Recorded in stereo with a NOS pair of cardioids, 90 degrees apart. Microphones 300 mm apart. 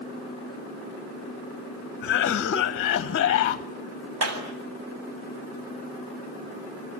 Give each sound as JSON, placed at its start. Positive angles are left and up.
{"t": 2.0, "sound": "a cough", "azimuth_deg": 45, "distance_m": 1.1}
{"t": 4.2, "sound": "a clap", "azimuth_deg": -55, "distance_m": 7.5}